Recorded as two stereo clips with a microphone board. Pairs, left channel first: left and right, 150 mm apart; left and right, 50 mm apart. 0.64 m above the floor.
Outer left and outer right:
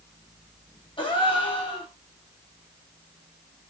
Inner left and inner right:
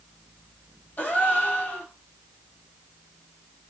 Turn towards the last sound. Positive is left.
turn(degrees=35)  # may be behind; listen again after turning